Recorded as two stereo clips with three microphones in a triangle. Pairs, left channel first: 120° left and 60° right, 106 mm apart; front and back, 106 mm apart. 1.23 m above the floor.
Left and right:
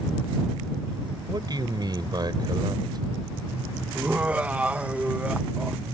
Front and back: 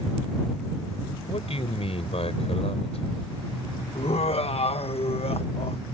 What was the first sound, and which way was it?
A man speaking, 15° right.